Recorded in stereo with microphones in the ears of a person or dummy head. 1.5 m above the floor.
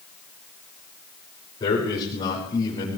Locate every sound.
1.6 s a man speaking: 20° left (ahead or behind), 7 m